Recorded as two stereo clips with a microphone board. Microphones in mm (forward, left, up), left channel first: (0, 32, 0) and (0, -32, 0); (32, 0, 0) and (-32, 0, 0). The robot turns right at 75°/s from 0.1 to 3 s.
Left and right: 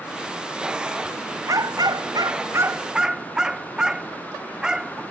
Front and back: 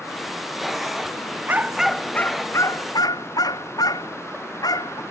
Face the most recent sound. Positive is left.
turn(degrees=-10)